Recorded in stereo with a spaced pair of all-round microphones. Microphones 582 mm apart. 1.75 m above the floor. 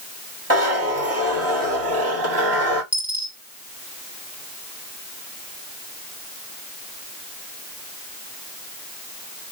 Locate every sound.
0.5 s a zipper: 25° right (ahead or behind), 1.9 m
2.9 s a dropped coin: 5° right (ahead or behind), 1.4 m